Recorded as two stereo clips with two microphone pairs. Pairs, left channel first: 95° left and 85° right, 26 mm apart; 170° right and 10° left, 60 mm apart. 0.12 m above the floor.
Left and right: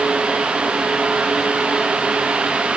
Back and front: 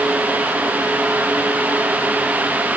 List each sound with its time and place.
Only background noise.